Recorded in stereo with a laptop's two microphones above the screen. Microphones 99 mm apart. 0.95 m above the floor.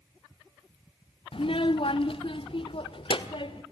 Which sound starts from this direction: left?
A child speaking, at 1.3 s.